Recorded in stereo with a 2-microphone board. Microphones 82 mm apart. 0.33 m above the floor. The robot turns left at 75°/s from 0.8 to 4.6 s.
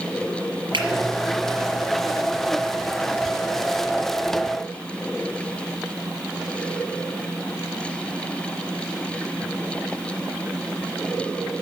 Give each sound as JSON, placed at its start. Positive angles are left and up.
{"t": 0.7, "sound": "a finger snap", "side_deg": -80, "distance_m": 4.5}